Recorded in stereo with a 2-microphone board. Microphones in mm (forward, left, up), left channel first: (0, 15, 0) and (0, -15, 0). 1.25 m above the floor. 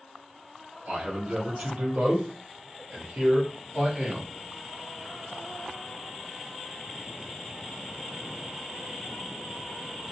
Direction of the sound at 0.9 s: 55° right (ahead or behind).